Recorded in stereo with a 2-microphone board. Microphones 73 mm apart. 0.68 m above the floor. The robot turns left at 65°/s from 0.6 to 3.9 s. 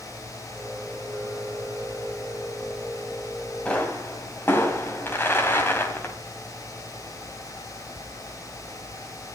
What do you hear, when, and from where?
3.6 s a pop: 15° left (ahead or behind), 3 m; by 6.2 s 30° left (ahead or behind), 3 m